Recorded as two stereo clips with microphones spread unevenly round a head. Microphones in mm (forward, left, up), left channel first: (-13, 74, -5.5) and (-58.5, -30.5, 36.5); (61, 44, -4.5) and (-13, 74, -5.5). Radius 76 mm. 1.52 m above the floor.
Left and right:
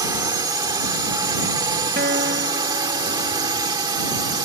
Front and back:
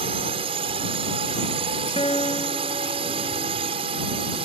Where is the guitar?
80° right.